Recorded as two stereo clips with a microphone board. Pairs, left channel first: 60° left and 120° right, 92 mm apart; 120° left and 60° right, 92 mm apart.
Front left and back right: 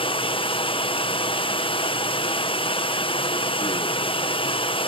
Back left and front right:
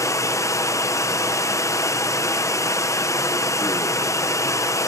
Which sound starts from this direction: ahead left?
Running water, at 0.0 s.